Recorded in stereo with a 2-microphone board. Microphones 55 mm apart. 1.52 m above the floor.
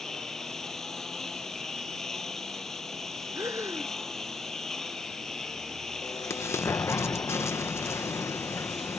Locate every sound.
0.0 s a lawn mower: 5° left (ahead or behind)
3.4 s breathing: 70° right (ahead or behind)
6.0 s an explosion: 55° left (ahead or behind)